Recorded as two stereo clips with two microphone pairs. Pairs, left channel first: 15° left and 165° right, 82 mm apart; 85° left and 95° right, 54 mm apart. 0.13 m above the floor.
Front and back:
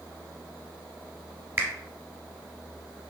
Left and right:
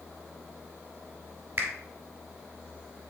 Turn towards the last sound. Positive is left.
turn(degrees=-125)